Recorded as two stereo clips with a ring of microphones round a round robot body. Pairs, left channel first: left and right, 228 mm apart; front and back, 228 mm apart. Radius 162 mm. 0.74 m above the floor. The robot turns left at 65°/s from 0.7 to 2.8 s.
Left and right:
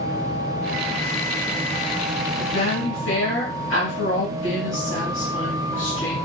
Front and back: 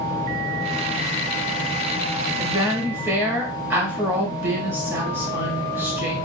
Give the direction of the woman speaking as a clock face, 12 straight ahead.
8 o'clock.